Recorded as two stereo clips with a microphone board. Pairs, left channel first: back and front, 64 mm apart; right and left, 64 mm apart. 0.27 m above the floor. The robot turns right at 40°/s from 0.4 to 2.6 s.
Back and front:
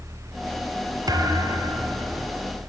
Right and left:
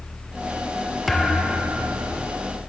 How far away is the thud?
About 2 m.